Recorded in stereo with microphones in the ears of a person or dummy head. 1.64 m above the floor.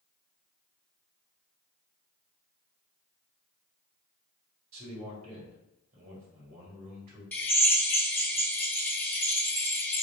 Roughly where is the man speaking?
Right.